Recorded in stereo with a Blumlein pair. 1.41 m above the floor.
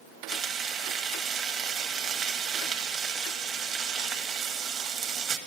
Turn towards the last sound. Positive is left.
turn(degrees=-30)